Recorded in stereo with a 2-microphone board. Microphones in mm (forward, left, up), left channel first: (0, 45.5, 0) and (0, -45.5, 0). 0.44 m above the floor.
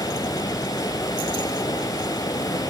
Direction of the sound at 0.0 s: 40° left (ahead or behind).